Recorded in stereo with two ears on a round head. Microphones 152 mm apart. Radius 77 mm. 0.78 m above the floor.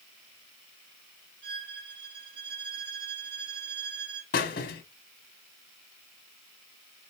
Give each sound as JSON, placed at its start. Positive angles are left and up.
{"t": 1.4, "sound": "a violin", "side_deg": -80, "distance_m": 4.0}
{"t": 4.3, "sound": "a squeak", "side_deg": 60, "distance_m": 1.3}